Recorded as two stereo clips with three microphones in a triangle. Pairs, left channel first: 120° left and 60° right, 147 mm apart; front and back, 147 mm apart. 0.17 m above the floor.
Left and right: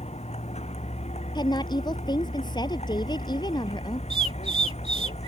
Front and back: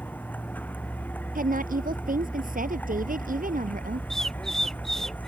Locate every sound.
0.0 s a vehicle: 80° left
1.4 s a woman speaking: straight behind
4.1 s a bird: 85° right